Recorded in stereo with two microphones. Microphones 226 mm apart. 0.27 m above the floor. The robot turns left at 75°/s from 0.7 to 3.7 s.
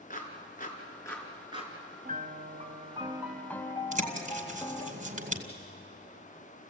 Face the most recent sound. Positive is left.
turn(degrees=-35)  # may be behind; listen again after turning